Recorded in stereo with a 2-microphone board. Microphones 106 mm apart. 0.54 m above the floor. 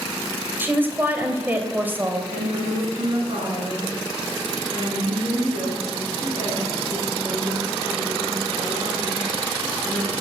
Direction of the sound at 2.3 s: 65° right (ahead or behind).